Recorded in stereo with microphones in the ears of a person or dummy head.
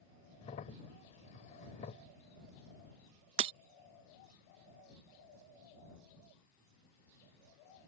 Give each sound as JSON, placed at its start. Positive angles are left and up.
{"t": 0.4, "sound": "a crack", "side_deg": 35}
{"t": 3.4, "sound": "breaking glass", "side_deg": -35}